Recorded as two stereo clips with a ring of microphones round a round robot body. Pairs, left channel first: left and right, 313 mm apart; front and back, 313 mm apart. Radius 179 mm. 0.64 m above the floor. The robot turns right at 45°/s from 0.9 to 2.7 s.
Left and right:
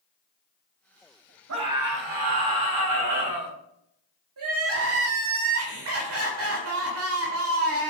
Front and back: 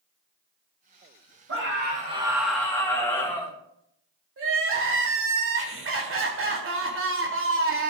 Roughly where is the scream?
Behind right.